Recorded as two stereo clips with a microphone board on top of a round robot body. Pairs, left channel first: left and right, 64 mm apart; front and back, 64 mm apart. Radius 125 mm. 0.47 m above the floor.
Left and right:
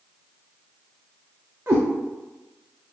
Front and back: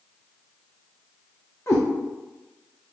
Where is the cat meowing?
40° right, 0.7 m.